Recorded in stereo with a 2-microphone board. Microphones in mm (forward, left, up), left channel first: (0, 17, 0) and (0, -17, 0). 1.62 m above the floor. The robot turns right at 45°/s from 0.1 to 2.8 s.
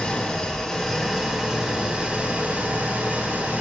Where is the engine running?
135° left, 1.9 m; by 3.6 s 105° right, 1.9 m.